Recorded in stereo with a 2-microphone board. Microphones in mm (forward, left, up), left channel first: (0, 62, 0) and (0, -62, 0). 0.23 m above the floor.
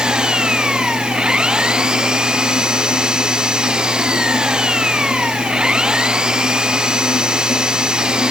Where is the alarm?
No alarm in this recording.